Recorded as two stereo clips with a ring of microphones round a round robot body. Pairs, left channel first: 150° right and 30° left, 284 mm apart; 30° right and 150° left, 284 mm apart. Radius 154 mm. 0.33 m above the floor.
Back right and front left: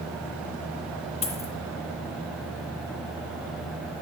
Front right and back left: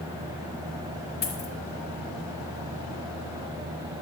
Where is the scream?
No scream in this recording.